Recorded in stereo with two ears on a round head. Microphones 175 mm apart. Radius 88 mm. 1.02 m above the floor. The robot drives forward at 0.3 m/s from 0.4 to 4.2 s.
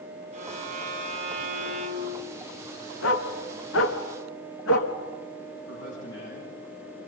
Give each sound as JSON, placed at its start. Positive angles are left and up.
{"t": 0.3, "sound": "a violin", "side_deg": -40, "distance_m": 2.5}
{"t": 3.0, "sound": "a dog barking", "side_deg": 75, "distance_m": 3.0}
{"t": 5.7, "sound": "a man speaking", "side_deg": 65, "distance_m": 9.5}